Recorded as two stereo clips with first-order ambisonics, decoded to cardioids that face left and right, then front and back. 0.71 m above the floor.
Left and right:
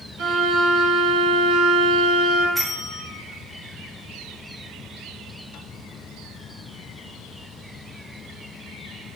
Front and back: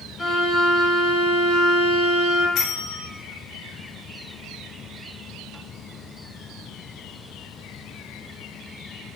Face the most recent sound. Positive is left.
turn(degrees=-5)